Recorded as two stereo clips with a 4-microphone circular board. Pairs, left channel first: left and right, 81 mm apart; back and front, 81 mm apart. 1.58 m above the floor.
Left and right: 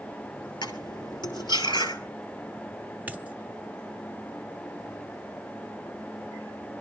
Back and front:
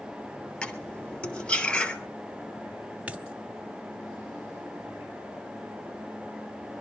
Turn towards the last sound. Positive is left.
turn(degrees=-55)